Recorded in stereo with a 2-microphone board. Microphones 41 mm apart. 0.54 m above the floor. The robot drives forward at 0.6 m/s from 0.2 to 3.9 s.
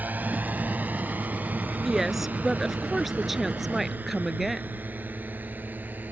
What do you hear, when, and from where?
0.0 s a drone: 40° right (ahead or behind); by 6.1 s 45° right (ahead or behind)
1.9 s a woman speaking: 5° right (ahead or behind)